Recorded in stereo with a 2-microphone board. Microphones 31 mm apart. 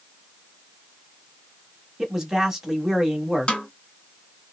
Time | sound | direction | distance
2.0 | a man speaking | 20° right (ahead or behind) | 1.0 m
3.5 | a snare drum | 35° left (ahead or behind) | 1.2 m